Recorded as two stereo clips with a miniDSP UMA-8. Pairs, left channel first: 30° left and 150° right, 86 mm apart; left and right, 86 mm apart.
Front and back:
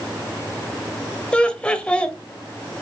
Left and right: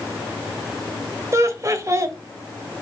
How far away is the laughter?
About 1.4 m.